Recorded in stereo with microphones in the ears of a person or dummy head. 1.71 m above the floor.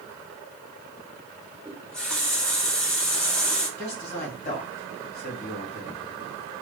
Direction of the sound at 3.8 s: 35° left (ahead or behind).